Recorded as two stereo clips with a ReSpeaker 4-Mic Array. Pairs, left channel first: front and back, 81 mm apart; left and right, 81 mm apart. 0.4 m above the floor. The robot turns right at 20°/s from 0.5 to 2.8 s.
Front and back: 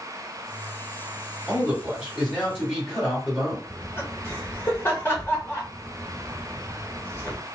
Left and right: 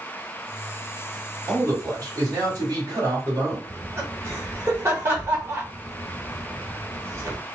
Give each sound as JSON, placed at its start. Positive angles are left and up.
{"t": 1.5, "sound": "a man speaking", "azimuth_deg": -100, "distance_m": 1.7}
{"t": 3.7, "sound": "laughter", "azimuth_deg": -50, "distance_m": 1.1}